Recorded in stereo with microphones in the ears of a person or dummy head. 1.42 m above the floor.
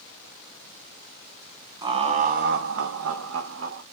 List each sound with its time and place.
1.8 s laughter: 25° right (ahead or behind), 0.9 m; by 3.8 s 65° right (ahead or behind), 1.1 m